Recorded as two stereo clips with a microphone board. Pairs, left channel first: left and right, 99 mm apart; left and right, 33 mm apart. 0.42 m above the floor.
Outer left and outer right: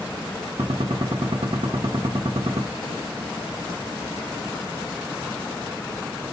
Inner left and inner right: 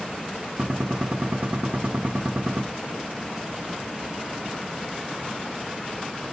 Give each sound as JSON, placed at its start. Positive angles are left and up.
{"t": 0.6, "sound": "a gunshot", "side_deg": -70, "distance_m": 0.6}